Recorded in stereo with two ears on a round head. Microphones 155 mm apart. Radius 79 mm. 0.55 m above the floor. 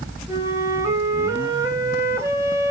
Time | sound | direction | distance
0.3 | a flute | 20° right (ahead or behind) | 2.5 m